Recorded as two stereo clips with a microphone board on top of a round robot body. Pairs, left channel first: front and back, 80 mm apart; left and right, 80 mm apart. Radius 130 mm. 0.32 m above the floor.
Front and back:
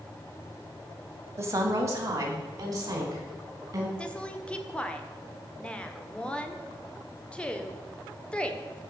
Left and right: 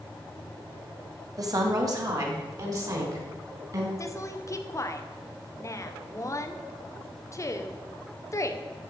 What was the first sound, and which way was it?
A woman speaking, 130° right.